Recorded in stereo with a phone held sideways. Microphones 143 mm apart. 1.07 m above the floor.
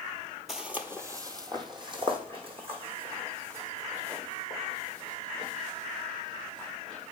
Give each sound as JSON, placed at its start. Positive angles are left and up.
{"t": 0.5, "sound": "footsteps", "side_deg": 0, "distance_m": 1.1}